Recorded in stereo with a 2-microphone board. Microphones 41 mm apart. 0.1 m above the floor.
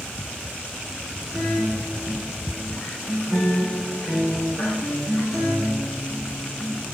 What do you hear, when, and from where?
1.3 s a guitar: centre (ahead or behind), 7.5 m